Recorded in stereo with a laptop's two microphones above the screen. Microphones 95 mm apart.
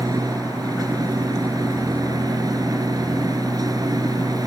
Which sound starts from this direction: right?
A machine running, at 0.0 s.